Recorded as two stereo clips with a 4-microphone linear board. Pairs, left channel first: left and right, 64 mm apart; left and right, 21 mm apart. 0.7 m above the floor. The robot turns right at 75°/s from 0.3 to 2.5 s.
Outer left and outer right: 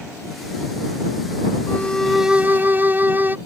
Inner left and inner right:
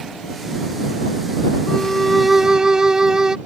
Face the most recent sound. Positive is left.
turn(degrees=-150)